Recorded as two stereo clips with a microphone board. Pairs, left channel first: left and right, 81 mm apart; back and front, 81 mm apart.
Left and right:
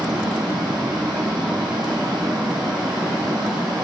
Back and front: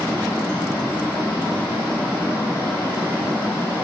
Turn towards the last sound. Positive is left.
turn(degrees=-110)